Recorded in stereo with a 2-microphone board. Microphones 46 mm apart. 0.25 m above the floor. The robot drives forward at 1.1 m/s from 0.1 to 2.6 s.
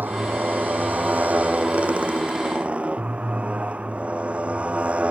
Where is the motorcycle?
45° right (ahead or behind); by 5.1 s 25° right (ahead or behind).